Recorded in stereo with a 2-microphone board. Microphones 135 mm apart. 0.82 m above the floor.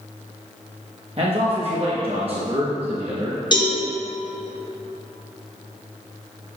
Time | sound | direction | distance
1.2 | a man speaking | 45° right (ahead or behind) | 1.1 m
3.5 | a cowbell | 35° left (ahead or behind) | 2.0 m